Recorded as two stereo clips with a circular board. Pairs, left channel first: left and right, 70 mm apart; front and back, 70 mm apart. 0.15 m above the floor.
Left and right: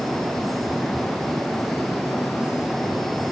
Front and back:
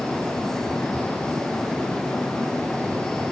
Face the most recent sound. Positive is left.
No sound to turn to.